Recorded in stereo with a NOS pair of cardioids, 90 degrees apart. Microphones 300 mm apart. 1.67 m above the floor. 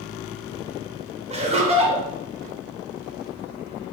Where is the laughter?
20° right, 1.5 m.